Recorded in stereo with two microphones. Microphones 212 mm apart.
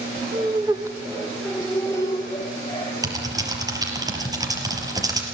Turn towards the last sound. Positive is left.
turn(degrees=-15)  # may be behind; listen again after turning